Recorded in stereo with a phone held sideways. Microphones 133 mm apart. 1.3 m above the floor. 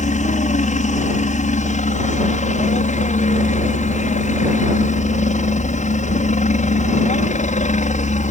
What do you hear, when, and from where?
0.0 s a helicopter: 65° left (ahead or behind)